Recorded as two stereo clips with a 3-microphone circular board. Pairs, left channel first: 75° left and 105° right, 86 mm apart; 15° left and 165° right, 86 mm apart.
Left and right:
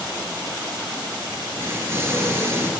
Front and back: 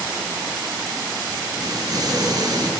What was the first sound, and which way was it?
An explosion, 155° right.